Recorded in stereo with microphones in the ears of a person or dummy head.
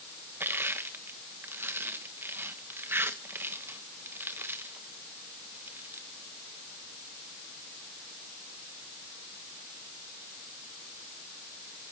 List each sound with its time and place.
0.4 s crushing: 10° right (ahead or behind), 1.2 m